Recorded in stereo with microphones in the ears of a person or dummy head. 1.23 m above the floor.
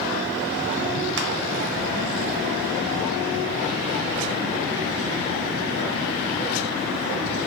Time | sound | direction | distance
1.2 | crushing | 55° right (ahead or behind) | 0.7 m